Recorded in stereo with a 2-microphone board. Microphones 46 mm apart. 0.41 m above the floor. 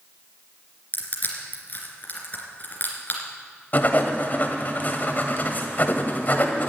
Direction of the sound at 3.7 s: 40° left (ahead or behind).